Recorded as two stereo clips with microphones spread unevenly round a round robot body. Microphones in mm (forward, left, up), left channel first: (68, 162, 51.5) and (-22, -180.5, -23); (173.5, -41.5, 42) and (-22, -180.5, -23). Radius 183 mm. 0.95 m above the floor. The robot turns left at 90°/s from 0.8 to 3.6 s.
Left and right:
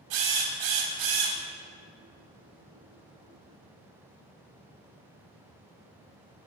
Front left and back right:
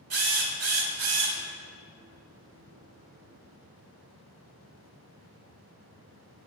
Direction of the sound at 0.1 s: 120° right.